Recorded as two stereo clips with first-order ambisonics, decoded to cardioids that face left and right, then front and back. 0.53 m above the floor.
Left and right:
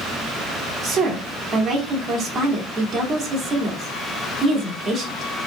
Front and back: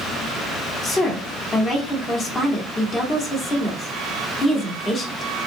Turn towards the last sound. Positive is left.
turn(degrees=-45)